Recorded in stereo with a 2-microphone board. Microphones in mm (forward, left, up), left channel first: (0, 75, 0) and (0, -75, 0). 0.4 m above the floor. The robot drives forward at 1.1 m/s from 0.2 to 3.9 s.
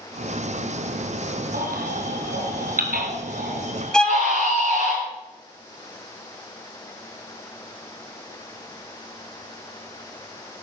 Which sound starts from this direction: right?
A baby crying, at 1.5 s.